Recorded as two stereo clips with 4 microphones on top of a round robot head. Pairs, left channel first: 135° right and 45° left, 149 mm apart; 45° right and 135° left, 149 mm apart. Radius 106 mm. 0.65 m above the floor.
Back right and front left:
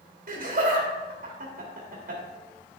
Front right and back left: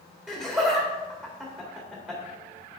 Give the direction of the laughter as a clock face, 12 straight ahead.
10 o'clock.